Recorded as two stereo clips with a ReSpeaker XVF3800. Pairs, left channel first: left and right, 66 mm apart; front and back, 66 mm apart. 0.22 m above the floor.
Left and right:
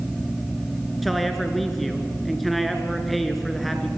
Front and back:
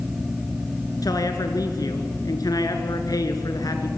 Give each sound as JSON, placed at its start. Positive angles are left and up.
{"t": 1.0, "sound": "a man speaking", "azimuth_deg": 0, "distance_m": 2.5}